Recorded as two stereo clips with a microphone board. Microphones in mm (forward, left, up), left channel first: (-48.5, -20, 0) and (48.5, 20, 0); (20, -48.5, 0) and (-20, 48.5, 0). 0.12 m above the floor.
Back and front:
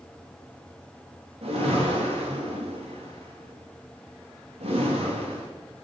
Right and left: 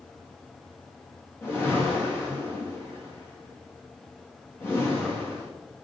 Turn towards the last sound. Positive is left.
turn(degrees=0)